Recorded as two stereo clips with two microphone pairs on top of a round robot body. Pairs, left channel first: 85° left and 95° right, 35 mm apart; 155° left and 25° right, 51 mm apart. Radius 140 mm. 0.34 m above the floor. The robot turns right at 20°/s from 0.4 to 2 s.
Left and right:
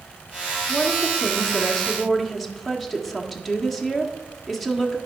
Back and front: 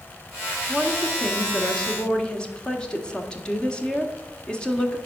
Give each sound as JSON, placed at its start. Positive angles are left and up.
{"t": 0.7, "sound": "a woman speaking", "azimuth_deg": 150, "distance_m": 1.6}